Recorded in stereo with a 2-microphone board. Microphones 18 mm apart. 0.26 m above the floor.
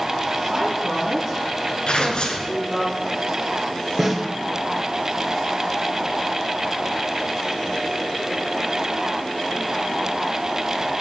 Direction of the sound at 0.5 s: 30° right (ahead or behind).